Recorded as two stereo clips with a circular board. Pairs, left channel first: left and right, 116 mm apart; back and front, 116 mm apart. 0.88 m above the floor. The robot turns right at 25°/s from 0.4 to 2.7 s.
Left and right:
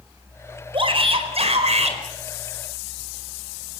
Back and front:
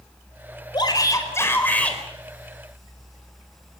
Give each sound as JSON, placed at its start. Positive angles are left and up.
{"t": 0.7, "sound": "a shout", "azimuth_deg": -130, "distance_m": 4.5}